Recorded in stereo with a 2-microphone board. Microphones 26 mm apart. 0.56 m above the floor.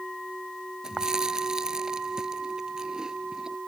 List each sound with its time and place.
0.8 s chewing: 25° right (ahead or behind)